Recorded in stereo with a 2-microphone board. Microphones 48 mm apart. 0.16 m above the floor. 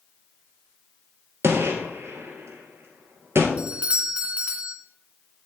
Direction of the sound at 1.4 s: 65° right (ahead or behind).